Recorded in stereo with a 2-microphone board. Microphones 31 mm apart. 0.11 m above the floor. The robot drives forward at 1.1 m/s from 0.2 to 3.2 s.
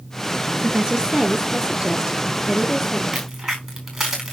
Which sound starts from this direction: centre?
A crack, at 3.1 s.